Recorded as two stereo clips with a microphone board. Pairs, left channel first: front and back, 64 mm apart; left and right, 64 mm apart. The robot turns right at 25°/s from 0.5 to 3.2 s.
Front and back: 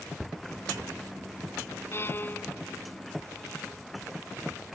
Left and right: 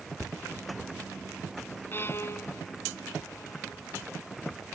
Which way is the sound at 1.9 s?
40° left.